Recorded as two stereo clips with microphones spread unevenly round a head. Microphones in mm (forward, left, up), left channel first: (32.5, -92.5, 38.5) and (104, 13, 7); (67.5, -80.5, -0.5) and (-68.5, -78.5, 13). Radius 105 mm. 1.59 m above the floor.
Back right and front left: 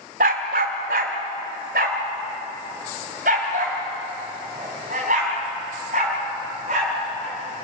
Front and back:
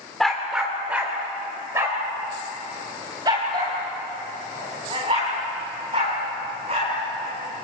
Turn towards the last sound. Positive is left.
turn(degrees=115)